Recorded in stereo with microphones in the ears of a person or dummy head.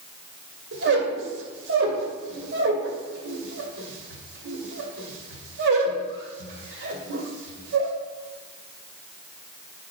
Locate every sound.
0.7 s a squeak: 70° right (ahead or behind), 2 m